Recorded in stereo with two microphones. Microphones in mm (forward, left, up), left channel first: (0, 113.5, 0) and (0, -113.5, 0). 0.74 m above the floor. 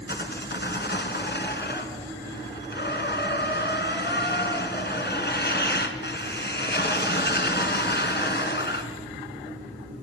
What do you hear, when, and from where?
0.1 s sawing: 50° left (ahead or behind), 2.5 m